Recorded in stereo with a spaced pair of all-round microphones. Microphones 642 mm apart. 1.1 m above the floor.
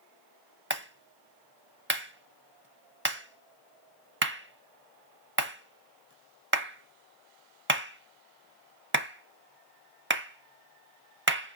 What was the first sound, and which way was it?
A clap, 20° right (ahead or behind).